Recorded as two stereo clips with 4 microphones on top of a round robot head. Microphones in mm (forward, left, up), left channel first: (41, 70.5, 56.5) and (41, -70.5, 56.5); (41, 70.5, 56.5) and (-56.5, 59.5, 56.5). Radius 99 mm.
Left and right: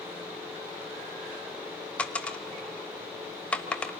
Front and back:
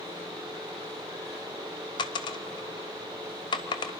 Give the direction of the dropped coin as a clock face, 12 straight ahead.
12 o'clock.